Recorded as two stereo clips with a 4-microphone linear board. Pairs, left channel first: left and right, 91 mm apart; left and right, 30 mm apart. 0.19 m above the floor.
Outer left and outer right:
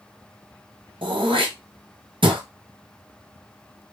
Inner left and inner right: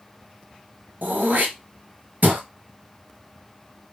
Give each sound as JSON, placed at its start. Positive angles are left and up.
{"t": 1.0, "sound": "throat clearing", "side_deg": -75, "distance_m": 1.3}